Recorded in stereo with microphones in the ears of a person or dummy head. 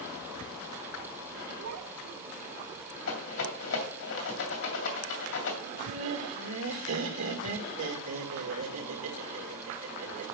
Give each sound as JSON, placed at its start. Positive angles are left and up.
{"t": 1.6, "sound": "a child speaking", "side_deg": -80, "distance_m": 1.9}
{"t": 3.1, "sound": "a rattle", "side_deg": 70, "distance_m": 2.5}
{"t": 5.6, "sound": "laughter", "side_deg": -80, "distance_m": 1.8}